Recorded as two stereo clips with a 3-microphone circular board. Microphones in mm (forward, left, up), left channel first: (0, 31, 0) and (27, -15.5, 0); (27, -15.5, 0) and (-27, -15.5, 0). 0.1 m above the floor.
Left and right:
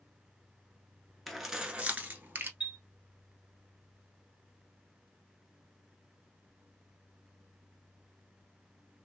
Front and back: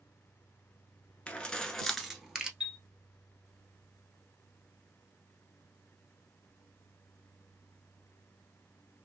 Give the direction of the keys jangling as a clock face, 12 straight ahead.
11 o'clock.